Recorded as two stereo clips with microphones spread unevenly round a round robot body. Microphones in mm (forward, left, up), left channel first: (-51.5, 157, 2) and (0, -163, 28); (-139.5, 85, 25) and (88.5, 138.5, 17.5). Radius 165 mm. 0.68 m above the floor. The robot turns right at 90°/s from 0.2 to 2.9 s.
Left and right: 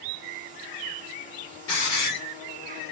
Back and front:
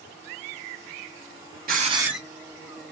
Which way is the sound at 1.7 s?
55° left.